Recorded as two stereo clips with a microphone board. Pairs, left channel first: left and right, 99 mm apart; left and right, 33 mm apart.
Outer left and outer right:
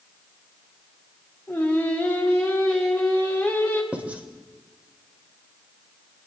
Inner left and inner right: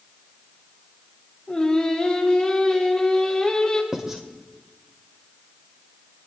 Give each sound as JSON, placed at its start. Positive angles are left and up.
{"t": 1.5, "sound": "singing", "side_deg": 15, "distance_m": 2.0}
{"t": 3.9, "sound": "writing", "side_deg": -15, "distance_m": 1.0}